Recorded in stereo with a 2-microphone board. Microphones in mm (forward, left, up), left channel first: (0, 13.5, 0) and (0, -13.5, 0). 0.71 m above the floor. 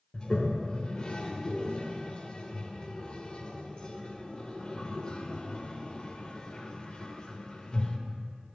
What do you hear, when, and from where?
0.1 s a toilet flushing: 35° left (ahead or behind), 0.6 m